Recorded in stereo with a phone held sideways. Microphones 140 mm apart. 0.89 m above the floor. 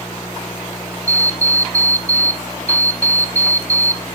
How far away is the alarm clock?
About 0.6 m.